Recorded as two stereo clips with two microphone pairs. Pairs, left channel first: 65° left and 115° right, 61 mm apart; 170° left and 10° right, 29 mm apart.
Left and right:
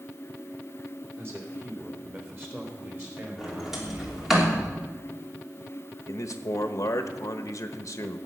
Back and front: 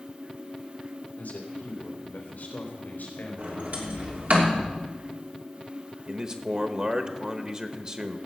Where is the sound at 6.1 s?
45° left, 1.1 m.